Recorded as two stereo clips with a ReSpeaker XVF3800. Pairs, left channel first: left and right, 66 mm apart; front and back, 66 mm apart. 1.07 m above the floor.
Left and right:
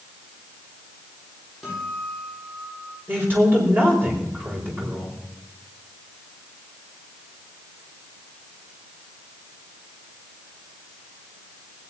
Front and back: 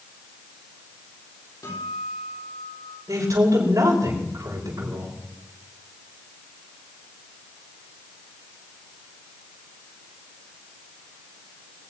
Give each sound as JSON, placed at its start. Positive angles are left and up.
{"t": 1.6, "sound": "a guitar", "azimuth_deg": 0, "distance_m": 8.5}
{"t": 3.1, "sound": "a man speaking", "azimuth_deg": -145, "distance_m": 5.0}